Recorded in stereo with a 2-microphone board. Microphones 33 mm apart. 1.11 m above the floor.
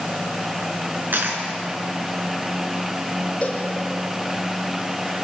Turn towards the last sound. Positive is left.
turn(degrees=35)  # may be behind; listen again after turning